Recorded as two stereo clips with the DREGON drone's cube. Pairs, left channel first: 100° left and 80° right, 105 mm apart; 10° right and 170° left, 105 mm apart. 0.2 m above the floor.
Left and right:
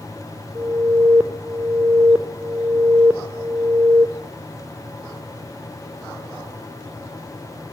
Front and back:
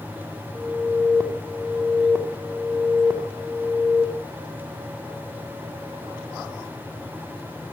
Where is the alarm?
150° right, 1.7 m.